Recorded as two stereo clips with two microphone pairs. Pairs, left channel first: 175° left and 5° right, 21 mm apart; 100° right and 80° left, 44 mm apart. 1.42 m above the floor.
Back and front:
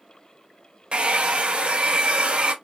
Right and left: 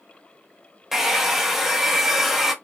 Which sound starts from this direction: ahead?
A hair dryer, at 0.9 s.